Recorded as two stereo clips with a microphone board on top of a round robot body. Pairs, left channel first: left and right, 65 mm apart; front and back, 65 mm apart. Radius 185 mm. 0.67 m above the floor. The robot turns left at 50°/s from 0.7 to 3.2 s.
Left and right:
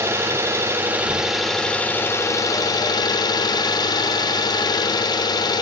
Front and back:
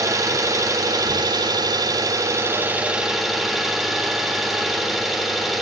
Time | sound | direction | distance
0.0 | an engine running | 145° right | 1.6 m